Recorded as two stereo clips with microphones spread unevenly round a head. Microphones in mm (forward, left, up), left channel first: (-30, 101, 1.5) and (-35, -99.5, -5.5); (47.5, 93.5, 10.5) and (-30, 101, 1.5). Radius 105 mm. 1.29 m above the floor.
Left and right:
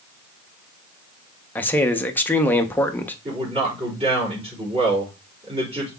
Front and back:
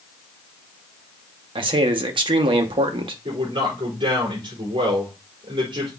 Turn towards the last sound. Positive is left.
turn(degrees=-150)